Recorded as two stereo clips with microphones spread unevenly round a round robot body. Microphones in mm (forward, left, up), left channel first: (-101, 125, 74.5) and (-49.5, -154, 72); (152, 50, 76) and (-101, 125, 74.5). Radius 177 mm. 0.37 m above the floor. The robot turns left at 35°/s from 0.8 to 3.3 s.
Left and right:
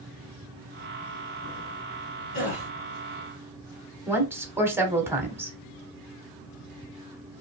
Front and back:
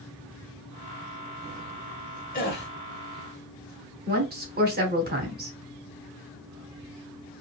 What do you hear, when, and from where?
2.3 s a gasp: 40° left, 1.4 m; by 2.7 s 30° left, 1.4 m
4.1 s a woman speaking: 160° right, 1.1 m